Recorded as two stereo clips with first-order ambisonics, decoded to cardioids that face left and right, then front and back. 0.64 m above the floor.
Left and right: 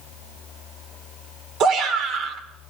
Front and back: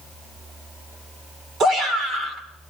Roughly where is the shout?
Behind right.